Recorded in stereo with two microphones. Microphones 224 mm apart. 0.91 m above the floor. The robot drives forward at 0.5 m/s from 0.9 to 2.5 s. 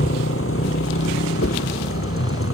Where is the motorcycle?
70° left (ahead or behind); by 2.5 s 75° left (ahead or behind).